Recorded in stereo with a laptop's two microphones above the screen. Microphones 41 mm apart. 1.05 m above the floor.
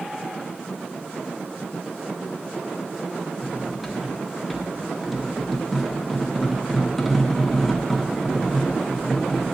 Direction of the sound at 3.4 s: Centre (ahead or behind).